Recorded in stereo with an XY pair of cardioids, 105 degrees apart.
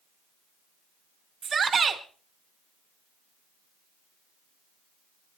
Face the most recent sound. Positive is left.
turn(degrees=-40)